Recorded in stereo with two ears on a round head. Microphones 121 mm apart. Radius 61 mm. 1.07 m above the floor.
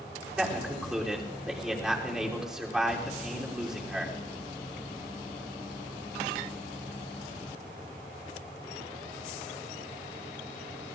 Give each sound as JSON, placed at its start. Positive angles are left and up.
{"t": 0.4, "sound": "a man speaking", "side_deg": -5, "distance_m": 3.0}